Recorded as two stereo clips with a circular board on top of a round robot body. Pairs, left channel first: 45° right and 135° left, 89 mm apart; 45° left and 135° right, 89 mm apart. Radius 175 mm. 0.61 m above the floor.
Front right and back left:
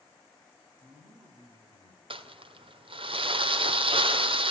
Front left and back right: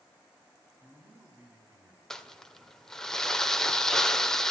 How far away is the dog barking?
I don't hear a dog barking.